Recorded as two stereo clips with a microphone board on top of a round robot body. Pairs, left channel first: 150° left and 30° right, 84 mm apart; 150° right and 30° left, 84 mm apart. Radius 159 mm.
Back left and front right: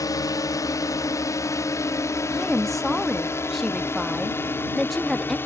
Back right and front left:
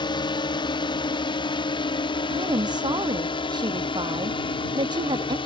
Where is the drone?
165° right; by 5.5 s 145° right.